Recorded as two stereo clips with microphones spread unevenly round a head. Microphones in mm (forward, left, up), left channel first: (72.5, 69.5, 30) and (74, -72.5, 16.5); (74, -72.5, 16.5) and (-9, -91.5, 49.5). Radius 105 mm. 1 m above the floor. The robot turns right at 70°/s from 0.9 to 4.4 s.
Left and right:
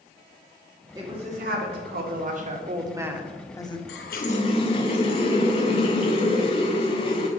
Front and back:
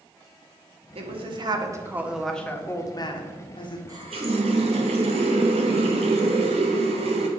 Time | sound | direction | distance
0.9 | a woman speaking | 165° right | 1.3 m
3.9 | a running tap | 120° left | 0.6 m